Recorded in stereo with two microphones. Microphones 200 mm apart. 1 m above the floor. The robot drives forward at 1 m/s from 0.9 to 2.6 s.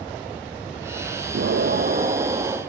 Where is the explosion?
75° right (ahead or behind), 0.5 m; by 2.6 s 25° right (ahead or behind), 1.2 m.